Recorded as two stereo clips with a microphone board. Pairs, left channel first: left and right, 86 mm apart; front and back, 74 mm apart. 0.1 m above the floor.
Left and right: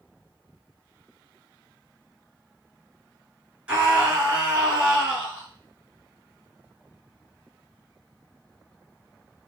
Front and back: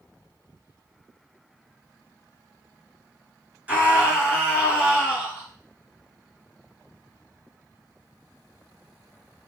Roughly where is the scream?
Behind right.